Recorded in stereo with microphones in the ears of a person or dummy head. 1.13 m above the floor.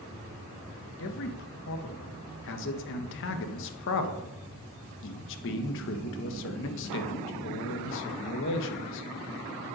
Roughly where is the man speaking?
Left.